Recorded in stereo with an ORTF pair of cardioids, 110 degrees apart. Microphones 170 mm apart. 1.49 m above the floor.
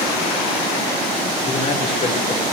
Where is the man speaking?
35° left, 5 m.